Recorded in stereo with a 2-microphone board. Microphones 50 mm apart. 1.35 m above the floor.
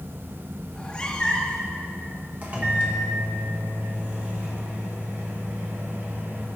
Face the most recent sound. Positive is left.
turn(degrees=-30)  # may be behind; listen again after turning